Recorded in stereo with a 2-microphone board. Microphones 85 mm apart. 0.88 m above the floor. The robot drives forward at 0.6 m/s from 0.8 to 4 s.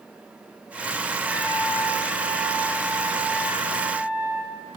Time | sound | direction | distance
1.2 | a trumpet | 15° right (ahead or behind) | 8 m